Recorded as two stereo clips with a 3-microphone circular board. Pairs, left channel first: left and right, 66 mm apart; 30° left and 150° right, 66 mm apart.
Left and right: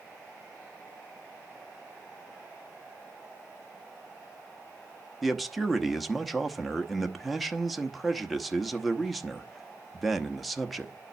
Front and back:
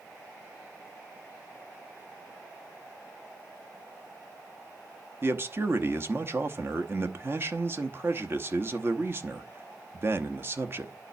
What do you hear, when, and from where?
5.2 s a man speaking: straight behind, 0.8 m